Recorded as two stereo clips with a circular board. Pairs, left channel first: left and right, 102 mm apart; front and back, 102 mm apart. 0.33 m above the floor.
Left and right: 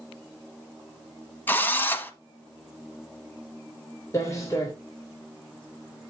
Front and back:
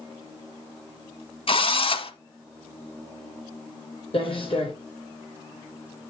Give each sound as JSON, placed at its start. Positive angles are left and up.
{"t": 1.5, "sound": "a drill", "azimuth_deg": 20, "distance_m": 0.9}
{"t": 4.1, "sound": "footsteps", "azimuth_deg": 30, "distance_m": 3.0}